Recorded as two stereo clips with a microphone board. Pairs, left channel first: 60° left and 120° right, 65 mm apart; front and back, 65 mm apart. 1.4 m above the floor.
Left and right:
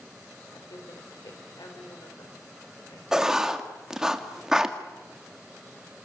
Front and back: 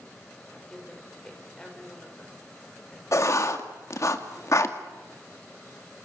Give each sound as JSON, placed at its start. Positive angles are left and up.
{"t": 0.5, "sound": "a woman speaking", "azimuth_deg": 80, "distance_m": 5.5}
{"t": 3.1, "sound": "writing", "azimuth_deg": -40, "distance_m": 1.9}